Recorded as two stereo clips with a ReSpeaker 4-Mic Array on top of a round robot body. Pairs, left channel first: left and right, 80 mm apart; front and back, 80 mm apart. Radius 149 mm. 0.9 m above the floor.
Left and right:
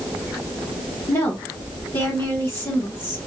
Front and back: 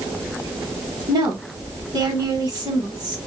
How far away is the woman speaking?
About 1.4 m.